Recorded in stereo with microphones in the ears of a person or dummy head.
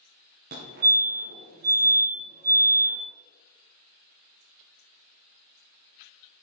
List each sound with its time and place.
0.5 s a fire alarm: 50° right (ahead or behind), 2.0 m